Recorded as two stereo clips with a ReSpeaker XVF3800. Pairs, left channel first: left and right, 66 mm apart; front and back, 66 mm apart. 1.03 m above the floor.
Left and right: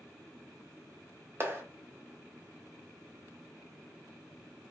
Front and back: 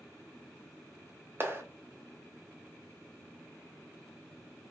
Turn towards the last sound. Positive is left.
turn(degrees=-135)